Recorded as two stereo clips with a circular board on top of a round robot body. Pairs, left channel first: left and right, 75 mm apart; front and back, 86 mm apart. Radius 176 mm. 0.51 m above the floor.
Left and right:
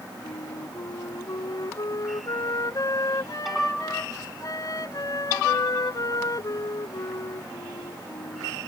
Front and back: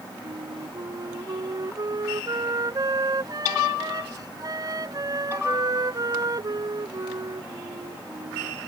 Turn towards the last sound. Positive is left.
turn(degrees=135)